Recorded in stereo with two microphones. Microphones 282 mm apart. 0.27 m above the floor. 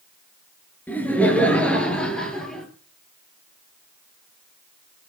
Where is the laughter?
5° left (ahead or behind), 4.5 m; by 2.7 s centre (ahead or behind), 5.5 m.